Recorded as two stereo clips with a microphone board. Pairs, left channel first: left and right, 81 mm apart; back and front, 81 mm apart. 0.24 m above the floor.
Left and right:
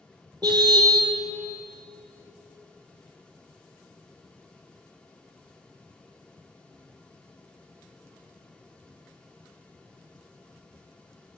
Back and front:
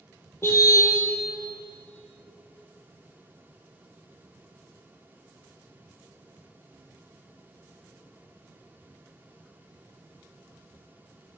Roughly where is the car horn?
Behind right.